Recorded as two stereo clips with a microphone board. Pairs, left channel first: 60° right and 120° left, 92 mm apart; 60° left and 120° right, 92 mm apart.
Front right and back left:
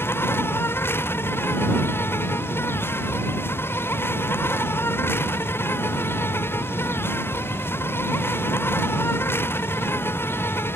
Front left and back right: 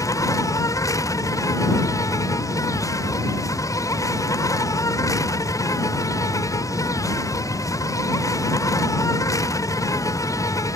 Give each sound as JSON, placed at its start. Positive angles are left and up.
{"t": 0.0, "sound": "an insect", "azimuth_deg": 5}